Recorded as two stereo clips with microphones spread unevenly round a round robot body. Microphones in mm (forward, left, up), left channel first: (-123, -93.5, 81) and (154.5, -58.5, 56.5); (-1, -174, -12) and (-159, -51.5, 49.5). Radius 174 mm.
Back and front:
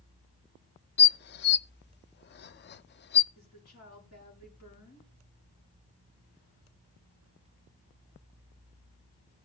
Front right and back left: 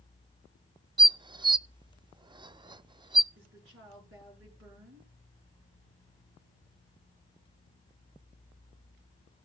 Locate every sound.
1.0 s dishes clattering: 135° right, 0.5 m
3.4 s a woman speaking: 140° left, 7.5 m